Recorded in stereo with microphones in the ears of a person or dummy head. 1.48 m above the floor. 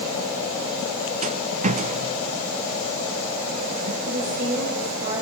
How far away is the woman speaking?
About 6.5 m.